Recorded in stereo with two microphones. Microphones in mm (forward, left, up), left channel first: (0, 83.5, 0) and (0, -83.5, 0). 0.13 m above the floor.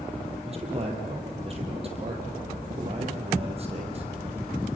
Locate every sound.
0.4 s a man speaking: 35° right (ahead or behind), 4 m